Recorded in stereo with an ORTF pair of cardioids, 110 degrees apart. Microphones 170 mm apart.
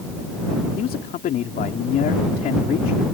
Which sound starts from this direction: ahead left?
A man speaking, at 0.8 s.